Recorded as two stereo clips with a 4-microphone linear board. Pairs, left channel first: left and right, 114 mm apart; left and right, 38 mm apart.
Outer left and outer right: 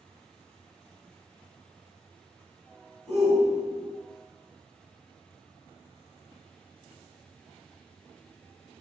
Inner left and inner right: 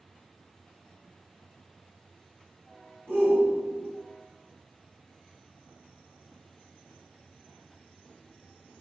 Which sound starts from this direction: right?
A shout, at 3.1 s.